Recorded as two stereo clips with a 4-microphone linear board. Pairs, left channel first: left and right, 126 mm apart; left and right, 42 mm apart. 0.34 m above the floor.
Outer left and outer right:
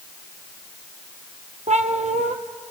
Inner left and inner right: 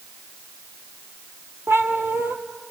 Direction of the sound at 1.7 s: 75° right (ahead or behind).